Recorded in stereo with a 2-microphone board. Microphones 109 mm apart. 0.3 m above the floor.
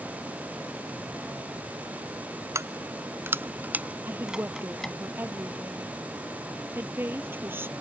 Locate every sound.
2.5 s keys jangling: 25° right (ahead or behind); by 5.0 s 5° left (ahead or behind)
4.1 s a woman speaking: 20° right (ahead or behind)